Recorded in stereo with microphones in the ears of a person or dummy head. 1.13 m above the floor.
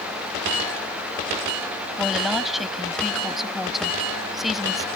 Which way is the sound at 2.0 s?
Centre (ahead or behind).